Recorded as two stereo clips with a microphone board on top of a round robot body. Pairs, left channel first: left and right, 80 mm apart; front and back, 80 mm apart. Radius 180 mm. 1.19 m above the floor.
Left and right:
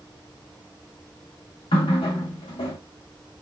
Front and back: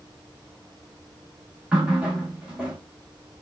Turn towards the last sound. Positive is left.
turn(degrees=100)